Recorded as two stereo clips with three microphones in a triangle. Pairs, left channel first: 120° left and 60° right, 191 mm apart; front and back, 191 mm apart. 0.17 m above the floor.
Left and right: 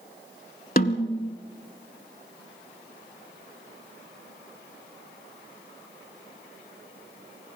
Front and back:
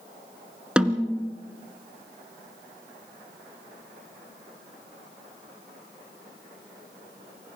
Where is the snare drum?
95° left, 1.2 m.